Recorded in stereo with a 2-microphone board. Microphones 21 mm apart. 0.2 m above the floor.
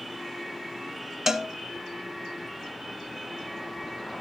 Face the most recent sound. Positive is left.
turn(degrees=-20)  # may be behind; listen again after turning